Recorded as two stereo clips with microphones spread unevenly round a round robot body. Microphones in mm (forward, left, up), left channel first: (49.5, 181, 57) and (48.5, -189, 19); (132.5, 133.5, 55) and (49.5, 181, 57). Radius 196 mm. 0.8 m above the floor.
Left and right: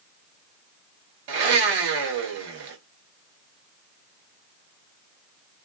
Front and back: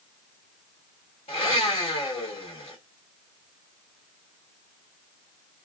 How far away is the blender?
About 0.9 m.